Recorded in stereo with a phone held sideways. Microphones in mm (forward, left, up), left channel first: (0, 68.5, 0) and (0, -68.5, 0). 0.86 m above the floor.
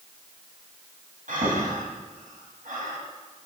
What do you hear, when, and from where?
1.3 s breathing: 75° right (ahead or behind), 4 m